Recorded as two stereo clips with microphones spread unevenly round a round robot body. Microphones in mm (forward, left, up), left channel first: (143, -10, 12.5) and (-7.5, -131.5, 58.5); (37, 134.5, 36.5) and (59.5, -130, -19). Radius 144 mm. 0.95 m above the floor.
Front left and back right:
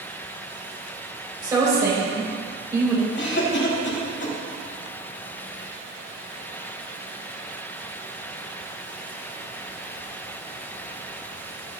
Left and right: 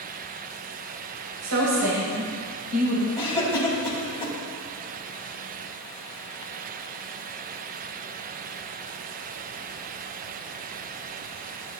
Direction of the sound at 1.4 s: 70° right.